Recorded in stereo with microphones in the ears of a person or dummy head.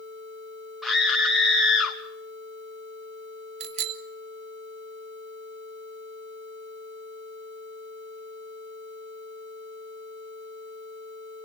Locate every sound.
0.8 s a scream: 5° right (ahead or behind), 2.5 m
3.6 s a bicycle bell: 40° right (ahead or behind), 2 m